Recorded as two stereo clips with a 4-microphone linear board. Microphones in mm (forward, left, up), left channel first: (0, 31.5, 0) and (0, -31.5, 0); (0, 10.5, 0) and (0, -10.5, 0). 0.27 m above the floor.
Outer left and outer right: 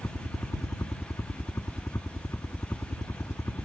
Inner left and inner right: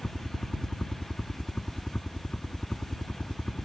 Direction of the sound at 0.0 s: 45° left (ahead or behind).